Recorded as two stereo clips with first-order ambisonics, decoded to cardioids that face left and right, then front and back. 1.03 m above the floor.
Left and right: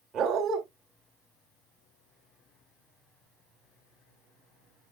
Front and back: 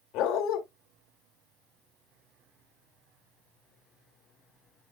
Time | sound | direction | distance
0.1 | a dog barking | 30° right | 1.8 m